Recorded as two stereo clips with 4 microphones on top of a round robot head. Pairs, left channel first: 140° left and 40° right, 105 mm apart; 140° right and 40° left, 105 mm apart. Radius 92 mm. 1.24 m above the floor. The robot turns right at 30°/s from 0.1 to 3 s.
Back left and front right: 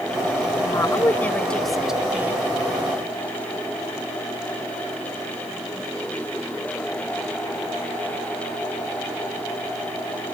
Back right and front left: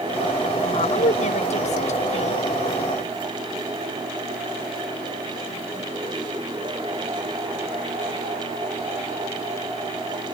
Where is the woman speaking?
165° right; by 2.5 s 110° right.